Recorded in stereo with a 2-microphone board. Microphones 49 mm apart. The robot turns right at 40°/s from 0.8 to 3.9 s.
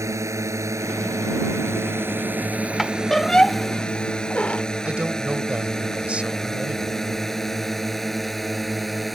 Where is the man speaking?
25° right (ahead or behind).